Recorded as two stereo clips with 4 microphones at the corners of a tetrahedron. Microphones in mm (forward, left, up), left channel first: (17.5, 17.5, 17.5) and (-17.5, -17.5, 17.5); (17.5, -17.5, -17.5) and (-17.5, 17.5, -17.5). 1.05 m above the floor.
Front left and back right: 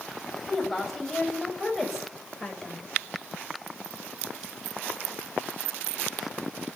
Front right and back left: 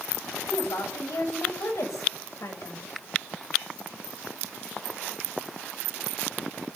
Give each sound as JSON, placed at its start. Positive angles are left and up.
{"t": 0.5, "sound": "a woman speaking", "azimuth_deg": -40, "distance_m": 7.0}